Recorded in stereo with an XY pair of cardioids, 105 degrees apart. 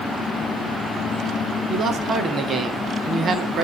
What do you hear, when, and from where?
1.7 s a man speaking: 40° right, 1.7 m